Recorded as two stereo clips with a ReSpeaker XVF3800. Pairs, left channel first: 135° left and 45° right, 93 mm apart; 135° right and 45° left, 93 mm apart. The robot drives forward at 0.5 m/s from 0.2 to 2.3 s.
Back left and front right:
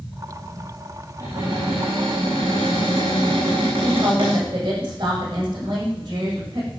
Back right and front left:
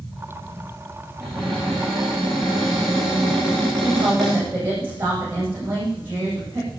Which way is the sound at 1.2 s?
40° right.